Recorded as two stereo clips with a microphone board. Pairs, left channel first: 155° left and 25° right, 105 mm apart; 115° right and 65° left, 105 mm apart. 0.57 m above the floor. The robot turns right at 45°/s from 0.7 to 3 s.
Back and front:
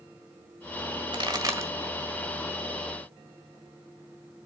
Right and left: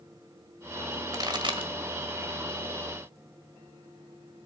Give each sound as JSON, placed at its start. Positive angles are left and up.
{"t": 1.1, "sound": "a pop", "azimuth_deg": 15, "distance_m": 1.6}